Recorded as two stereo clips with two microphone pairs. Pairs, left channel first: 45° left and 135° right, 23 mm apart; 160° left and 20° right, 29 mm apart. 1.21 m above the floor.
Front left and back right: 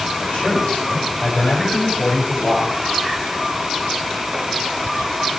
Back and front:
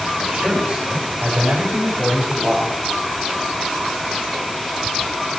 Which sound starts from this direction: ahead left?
A man speaking, at 0.2 s.